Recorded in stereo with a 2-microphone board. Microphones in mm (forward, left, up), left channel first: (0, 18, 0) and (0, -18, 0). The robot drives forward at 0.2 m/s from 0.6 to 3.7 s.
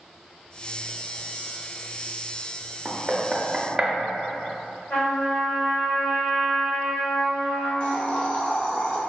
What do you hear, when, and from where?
2.9 s knocking: 20° right (ahead or behind), 0.6 m
4.9 s a trumpet: 60° left (ahead or behind), 1.5 m
7.8 s a hiss: 40° left (ahead or behind), 0.7 m